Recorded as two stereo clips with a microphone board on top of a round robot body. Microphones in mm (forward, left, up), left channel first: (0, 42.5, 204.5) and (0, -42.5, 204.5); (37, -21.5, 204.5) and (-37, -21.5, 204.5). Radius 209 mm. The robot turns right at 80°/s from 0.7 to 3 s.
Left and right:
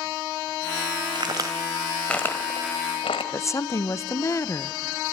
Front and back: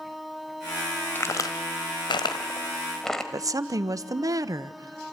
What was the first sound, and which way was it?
A crack, 60° right.